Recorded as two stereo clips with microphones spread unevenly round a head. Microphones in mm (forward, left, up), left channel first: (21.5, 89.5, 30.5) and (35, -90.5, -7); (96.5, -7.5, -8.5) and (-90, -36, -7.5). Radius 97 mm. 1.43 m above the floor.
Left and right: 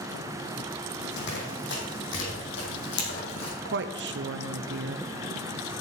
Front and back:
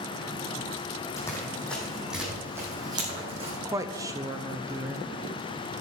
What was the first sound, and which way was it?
Running footsteps, 85° left.